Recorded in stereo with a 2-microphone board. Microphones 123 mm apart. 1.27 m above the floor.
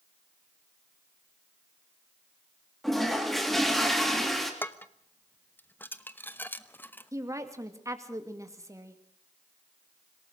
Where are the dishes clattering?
15° left (ahead or behind), 0.9 m.